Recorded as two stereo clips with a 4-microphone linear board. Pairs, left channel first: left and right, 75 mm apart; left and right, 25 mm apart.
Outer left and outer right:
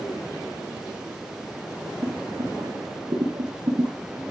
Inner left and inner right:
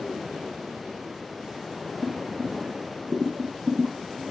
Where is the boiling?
60° right (ahead or behind), 6.5 m.